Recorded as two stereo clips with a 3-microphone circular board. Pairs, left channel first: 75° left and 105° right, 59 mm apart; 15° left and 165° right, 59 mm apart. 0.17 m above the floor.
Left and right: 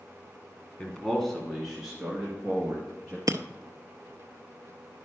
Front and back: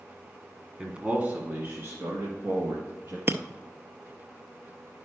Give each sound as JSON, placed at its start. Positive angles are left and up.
{"t": 0.8, "sound": "a man speaking", "azimuth_deg": 135, "distance_m": 1.2}
{"t": 3.3, "sound": "breaking glass", "azimuth_deg": -115, "distance_m": 0.5}